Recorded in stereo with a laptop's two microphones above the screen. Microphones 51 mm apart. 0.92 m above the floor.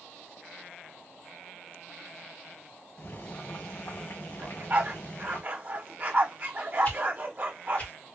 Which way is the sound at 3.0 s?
60° left (ahead or behind).